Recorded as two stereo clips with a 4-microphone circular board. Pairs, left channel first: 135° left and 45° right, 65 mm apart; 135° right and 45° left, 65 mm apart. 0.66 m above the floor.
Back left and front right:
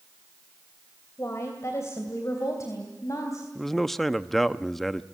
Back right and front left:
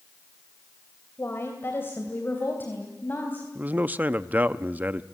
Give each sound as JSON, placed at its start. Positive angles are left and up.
{"t": 1.2, "sound": "a woman speaking", "azimuth_deg": 175, "distance_m": 2.5}
{"t": 3.5, "sound": "a man speaking", "azimuth_deg": 50, "distance_m": 0.5}